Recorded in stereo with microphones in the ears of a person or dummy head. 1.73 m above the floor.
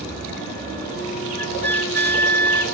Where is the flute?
10° left (ahead or behind), 0.7 m.